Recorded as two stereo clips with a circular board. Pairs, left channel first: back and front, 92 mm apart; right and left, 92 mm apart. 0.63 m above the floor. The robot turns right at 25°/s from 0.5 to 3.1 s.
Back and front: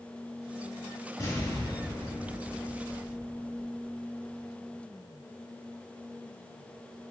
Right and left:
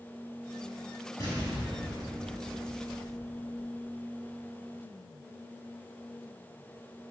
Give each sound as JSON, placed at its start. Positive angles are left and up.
{"t": 1.2, "sound": "an explosion", "azimuth_deg": -135, "distance_m": 2.5}